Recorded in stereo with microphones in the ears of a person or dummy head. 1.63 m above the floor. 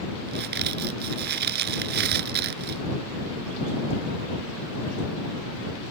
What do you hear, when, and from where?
0.3 s a crack: 60° right (ahead or behind)